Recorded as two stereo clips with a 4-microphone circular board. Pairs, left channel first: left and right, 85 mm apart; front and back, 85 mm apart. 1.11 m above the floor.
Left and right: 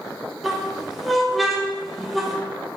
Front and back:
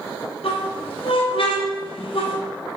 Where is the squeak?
Straight ahead, 0.7 m.